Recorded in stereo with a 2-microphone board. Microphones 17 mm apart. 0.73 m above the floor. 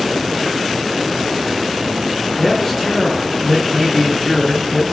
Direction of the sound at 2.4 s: 10° left (ahead or behind).